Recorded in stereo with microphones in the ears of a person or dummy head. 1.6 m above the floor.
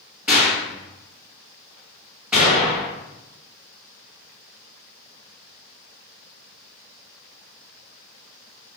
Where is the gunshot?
5° right (ahead or behind), 1.5 m.